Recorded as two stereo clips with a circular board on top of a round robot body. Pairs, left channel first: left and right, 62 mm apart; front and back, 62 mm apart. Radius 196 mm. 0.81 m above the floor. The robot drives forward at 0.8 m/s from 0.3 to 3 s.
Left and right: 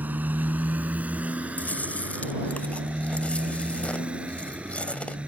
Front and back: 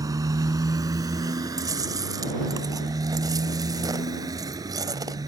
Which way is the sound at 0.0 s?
155° right.